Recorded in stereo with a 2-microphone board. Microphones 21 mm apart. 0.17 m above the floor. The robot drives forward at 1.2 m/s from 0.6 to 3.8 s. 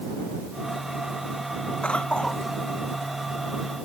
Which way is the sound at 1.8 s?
65° left (ahead or behind).